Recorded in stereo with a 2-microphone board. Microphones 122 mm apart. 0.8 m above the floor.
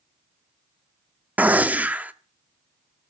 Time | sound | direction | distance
1.4 | a gunshot | 15° right (ahead or behind) | 0.5 m